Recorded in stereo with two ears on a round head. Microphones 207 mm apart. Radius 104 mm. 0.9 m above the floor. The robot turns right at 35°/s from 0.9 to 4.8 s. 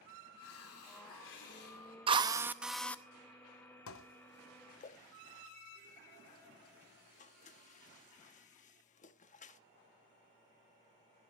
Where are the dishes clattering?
65° left (ahead or behind), 0.9 m; by 9.6 s 35° left (ahead or behind), 0.9 m.